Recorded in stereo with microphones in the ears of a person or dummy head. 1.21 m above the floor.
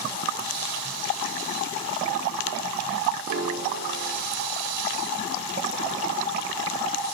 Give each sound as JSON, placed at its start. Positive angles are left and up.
{"t": 3.3, "sound": "a piano", "side_deg": -45, "distance_m": 1.2}